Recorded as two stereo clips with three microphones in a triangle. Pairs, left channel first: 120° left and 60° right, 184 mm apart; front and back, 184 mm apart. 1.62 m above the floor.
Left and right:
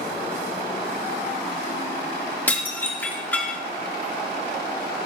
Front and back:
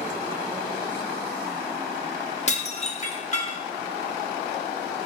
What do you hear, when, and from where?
2.5 s dishes clattering: 40° left, 1.4 m